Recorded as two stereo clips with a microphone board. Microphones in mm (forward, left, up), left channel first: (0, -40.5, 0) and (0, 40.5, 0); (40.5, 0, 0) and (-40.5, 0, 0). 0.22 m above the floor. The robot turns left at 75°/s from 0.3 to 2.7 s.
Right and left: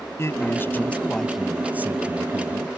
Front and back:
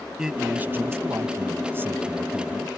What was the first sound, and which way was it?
A man speaking, 105° right.